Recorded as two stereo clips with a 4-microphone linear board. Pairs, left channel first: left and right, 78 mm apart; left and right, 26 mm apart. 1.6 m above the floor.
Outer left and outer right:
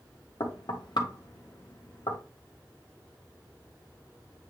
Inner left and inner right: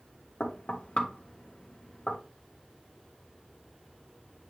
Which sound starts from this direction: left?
Knocking, at 0.4 s.